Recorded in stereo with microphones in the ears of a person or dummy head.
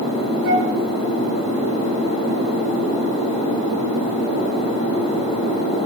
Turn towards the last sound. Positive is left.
turn(degrees=-60)  # may be behind; listen again after turning